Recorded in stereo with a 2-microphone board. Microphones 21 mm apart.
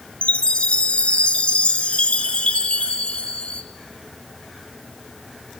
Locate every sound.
0.2 s a chime: 55° left (ahead or behind), 1.6 m